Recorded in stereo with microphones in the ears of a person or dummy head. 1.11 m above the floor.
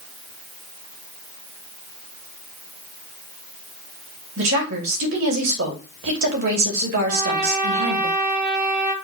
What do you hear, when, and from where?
4.4 s a woman speaking: 70° right (ahead or behind), 2.5 m
7.1 s a trumpet: 55° right (ahead or behind), 2.5 m